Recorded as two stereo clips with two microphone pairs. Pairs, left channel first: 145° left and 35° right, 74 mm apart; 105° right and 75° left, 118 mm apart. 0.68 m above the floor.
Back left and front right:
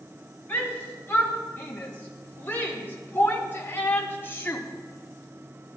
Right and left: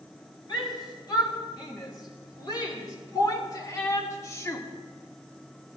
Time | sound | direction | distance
0.5 | a shout | 155° right | 4 m